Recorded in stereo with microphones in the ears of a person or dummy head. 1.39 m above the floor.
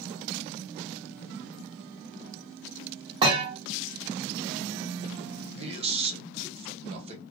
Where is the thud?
30° right (ahead or behind), 1.5 m.